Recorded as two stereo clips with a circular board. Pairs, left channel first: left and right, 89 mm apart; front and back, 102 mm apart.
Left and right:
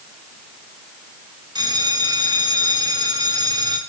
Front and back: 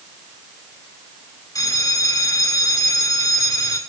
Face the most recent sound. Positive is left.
turn(degrees=-55)